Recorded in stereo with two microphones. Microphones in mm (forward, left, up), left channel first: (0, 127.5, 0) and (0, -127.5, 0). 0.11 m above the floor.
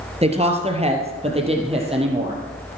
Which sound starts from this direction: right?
A woman speaking, at 0.2 s.